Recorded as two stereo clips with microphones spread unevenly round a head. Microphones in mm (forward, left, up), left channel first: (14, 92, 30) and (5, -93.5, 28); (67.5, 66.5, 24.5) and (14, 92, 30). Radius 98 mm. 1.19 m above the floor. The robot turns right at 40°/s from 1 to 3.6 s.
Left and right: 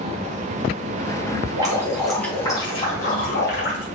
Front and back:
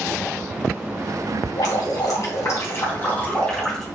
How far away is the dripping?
About 3.5 m.